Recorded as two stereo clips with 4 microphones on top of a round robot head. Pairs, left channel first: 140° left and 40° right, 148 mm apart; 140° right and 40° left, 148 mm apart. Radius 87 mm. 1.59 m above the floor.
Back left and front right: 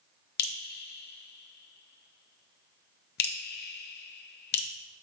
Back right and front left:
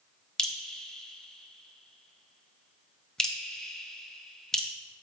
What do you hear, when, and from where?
0.4 s dripping: 135° left, 0.8 m